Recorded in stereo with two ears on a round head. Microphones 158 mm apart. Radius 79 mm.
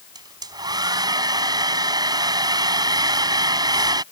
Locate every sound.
0.1 s a hair dryer: 20° right (ahead or behind)